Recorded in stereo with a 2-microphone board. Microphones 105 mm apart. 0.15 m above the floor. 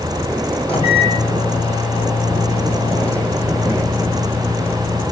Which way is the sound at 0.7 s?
65° left (ahead or behind).